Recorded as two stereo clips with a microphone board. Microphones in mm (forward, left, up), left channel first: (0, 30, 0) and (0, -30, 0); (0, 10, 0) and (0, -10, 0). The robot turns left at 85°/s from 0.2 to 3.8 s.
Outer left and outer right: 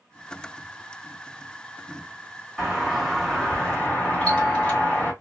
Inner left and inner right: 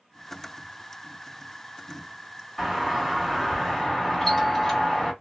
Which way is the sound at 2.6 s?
10° right (ahead or behind).